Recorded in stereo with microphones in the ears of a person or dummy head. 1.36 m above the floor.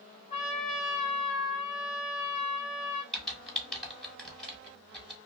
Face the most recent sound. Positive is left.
turn(degrees=0)  # may be behind; listen again after turning